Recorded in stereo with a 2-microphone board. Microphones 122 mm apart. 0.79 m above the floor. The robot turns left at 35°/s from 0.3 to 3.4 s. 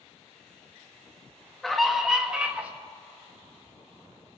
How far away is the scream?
About 1.0 m.